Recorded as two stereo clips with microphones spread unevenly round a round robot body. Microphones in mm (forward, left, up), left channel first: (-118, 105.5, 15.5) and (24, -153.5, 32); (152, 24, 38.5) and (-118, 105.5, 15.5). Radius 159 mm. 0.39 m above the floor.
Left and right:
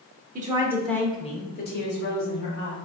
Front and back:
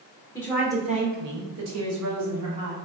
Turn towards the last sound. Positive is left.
turn(degrees=160)